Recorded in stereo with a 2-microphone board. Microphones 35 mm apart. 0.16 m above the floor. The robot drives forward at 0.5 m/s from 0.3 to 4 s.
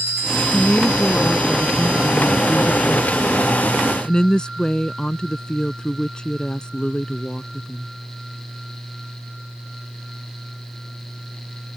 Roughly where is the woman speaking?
Left.